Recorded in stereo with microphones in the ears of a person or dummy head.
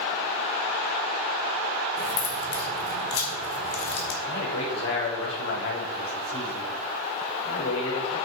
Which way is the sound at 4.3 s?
70° left (ahead or behind).